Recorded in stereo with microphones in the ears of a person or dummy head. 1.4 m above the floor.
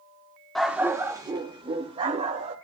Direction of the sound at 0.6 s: Centre (ahead or behind).